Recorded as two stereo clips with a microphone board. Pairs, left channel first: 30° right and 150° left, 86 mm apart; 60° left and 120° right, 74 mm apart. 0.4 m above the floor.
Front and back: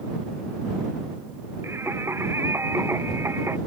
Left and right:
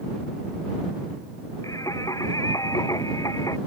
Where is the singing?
95° left.